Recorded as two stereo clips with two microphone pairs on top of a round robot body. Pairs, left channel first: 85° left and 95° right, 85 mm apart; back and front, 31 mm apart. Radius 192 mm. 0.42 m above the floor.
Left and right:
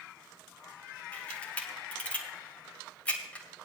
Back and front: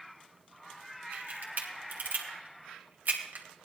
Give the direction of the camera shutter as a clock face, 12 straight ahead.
12 o'clock.